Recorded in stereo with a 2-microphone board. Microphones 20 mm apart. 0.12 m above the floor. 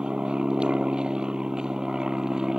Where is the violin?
No violin in this recording.